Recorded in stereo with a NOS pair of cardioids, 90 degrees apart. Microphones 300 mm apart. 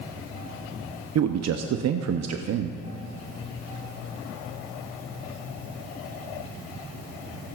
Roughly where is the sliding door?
I don't hear a sliding door.